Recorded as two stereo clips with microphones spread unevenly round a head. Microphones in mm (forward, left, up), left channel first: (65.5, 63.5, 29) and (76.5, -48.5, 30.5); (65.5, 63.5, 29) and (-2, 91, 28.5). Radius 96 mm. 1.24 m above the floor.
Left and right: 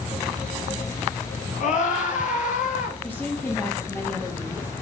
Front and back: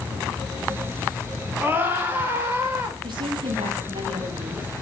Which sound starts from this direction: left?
A scream, at 1.6 s.